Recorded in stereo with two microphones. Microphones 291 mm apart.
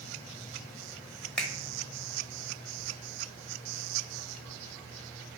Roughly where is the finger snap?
Centre.